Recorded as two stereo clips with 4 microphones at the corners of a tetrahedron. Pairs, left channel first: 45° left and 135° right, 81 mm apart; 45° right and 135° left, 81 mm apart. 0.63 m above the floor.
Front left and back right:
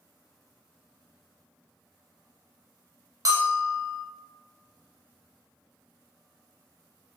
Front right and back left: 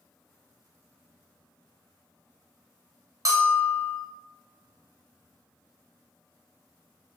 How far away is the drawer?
I don't hear a drawer.